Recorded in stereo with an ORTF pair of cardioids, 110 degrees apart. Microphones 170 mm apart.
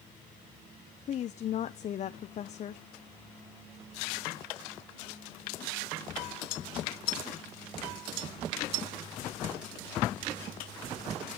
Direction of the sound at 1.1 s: 45° left.